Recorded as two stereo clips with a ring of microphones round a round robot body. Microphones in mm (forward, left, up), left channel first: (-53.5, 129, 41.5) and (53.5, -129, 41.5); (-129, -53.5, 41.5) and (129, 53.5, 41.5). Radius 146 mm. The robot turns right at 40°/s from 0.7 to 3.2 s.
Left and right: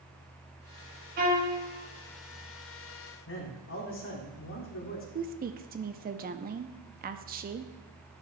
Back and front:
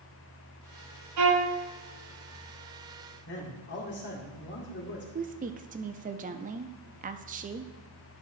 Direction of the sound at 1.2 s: 10° right.